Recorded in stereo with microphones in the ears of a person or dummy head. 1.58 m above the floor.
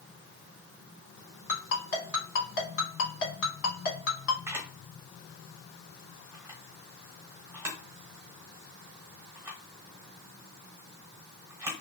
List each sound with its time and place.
1.5 s a ringtone: 60° left (ahead or behind), 1.8 m
4.5 s a camera shutter: 15° right (ahead or behind), 1.1 m